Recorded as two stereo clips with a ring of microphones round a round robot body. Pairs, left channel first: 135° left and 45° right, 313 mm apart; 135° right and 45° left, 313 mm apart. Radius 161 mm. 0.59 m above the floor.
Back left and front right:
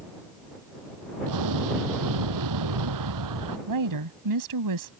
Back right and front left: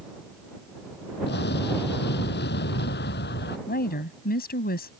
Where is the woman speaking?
70° right.